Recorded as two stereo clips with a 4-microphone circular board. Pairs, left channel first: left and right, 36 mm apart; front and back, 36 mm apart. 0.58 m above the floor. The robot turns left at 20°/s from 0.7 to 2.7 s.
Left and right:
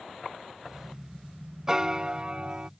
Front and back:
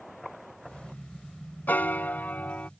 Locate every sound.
1.7 s a piano: 15° right; by 2.7 s 35° right